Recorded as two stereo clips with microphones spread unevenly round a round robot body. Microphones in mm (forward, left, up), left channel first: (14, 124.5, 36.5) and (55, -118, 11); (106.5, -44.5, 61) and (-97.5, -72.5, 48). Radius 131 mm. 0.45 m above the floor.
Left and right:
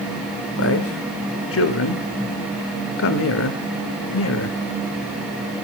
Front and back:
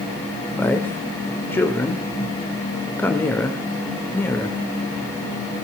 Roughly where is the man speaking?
Left.